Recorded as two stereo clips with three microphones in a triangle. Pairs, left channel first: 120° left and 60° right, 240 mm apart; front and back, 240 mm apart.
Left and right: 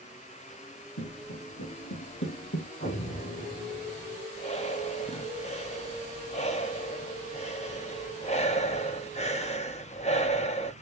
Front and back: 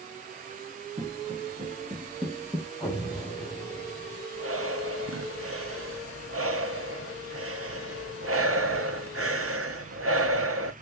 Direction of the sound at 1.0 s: 120° left.